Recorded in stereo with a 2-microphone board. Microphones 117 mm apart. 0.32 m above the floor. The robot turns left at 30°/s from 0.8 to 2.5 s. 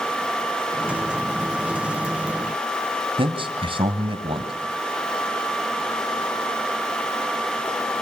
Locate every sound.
3.2 s a man speaking: 50° right (ahead or behind), 2.5 m